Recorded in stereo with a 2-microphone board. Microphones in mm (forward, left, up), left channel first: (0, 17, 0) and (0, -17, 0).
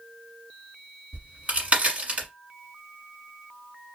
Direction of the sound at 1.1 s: 40° right (ahead or behind).